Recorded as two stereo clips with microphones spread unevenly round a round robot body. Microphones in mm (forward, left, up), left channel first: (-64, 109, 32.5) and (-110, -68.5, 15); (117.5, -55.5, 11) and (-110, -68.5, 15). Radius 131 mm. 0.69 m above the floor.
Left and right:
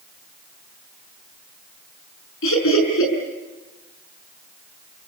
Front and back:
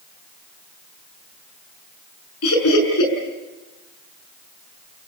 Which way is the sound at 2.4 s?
40° left.